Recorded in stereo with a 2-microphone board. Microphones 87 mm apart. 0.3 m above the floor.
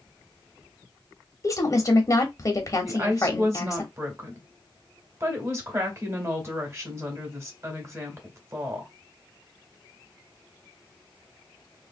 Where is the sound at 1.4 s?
35° left (ahead or behind), 1.0 m.